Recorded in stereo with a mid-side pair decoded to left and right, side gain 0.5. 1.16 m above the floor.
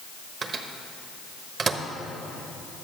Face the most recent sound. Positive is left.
turn(degrees=-50)